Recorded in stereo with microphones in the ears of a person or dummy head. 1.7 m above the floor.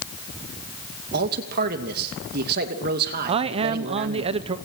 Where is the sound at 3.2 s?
35° right (ahead or behind), 0.8 m.